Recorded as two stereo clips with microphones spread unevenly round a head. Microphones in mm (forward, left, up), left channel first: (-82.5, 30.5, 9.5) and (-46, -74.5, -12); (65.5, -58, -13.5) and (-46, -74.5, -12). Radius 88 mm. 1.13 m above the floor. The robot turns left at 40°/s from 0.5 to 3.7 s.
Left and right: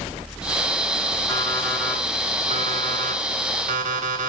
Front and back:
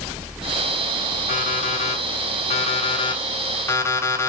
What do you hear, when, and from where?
1.3 s an alarm clock: 40° left, 3.5 m; by 4.3 s 60° right, 3.5 m